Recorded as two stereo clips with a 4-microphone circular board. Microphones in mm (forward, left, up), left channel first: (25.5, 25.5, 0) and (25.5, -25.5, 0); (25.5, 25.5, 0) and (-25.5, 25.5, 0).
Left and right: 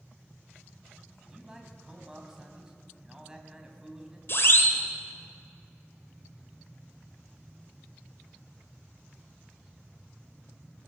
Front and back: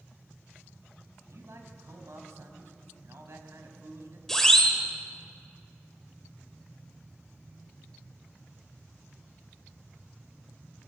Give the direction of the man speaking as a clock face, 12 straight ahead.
6 o'clock.